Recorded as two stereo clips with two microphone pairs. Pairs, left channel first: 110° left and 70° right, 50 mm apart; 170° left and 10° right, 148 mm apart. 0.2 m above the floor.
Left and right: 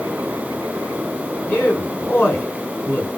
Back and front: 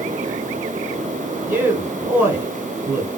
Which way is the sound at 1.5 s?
65° left.